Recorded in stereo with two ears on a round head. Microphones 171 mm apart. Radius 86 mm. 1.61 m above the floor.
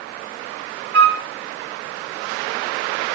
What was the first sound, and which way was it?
A flute, 60° right (ahead or behind).